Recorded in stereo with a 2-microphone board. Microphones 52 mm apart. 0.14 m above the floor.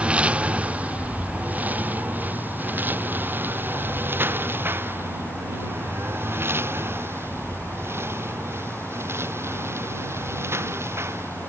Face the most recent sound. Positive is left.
turn(degrees=-55)  # may be behind; listen again after turning